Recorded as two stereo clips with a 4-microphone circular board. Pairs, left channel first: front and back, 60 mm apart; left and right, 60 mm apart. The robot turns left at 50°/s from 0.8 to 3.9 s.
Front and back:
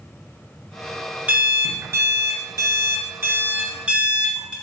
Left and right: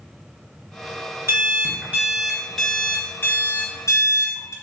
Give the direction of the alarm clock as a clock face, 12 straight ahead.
4 o'clock.